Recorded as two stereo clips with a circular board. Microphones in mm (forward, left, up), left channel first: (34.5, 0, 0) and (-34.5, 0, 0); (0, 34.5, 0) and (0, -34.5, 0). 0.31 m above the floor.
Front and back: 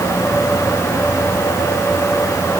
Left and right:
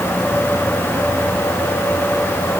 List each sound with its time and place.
Only background noise.